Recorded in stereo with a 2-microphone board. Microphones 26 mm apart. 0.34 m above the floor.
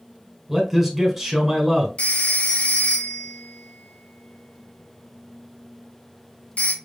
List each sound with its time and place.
0.5 s a man speaking: 5° right (ahead or behind), 1.5 m
2.0 s a phone ringing: 55° left (ahead or behind), 1.1 m